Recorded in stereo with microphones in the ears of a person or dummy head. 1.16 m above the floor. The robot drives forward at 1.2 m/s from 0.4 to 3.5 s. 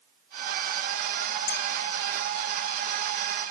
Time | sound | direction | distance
1.5 | a bell | 55° left (ahead or behind) | 1.4 m